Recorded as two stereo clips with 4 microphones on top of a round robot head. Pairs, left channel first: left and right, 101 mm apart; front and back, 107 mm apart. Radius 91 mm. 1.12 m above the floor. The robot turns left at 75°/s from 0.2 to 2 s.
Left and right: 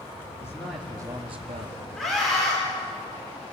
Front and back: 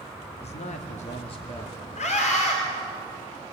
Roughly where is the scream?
Ahead.